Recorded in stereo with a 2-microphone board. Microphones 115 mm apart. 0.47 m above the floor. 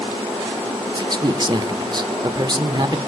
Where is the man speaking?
40° right (ahead or behind), 1.0 m.